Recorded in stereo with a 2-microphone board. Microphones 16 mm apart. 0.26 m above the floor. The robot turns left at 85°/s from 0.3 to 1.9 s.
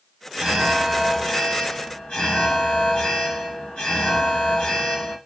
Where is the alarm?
150° right, 2.5 m; by 5.2 s 80° left, 2.5 m.